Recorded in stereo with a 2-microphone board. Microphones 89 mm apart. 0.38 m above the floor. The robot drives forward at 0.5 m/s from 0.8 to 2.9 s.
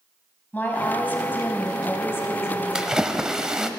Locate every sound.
0.5 s a woman speaking: 20° left (ahead or behind), 2.5 m; by 3.8 s 35° left (ahead or behind), 1.5 m
2.8 s a splash: 10° right (ahead or behind), 0.6 m; by 3.7 s 5° right (ahead or behind), 0.7 m